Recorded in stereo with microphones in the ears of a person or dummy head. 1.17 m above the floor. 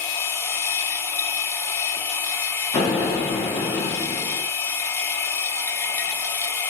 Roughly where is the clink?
No clink in this recording.